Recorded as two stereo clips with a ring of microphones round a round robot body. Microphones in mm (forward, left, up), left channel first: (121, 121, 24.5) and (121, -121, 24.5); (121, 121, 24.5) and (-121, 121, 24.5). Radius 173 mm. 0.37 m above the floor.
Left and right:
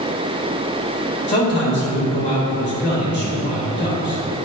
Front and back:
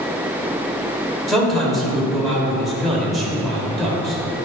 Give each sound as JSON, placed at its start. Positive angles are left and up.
{"t": 1.3, "sound": "a man speaking", "azimuth_deg": 90, "distance_m": 1.8}